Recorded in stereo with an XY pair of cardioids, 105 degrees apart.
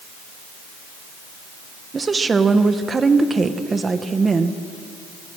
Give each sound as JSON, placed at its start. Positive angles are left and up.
{"t": 1.9, "sound": "a woman speaking", "azimuth_deg": -30, "distance_m": 1.5}